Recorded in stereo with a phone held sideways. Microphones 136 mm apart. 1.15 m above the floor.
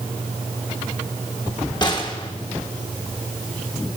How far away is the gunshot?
About 1.4 m.